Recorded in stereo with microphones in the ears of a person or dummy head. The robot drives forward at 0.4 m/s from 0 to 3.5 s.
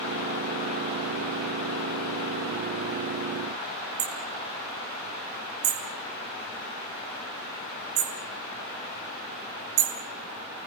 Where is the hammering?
60° right (ahead or behind), 3 m.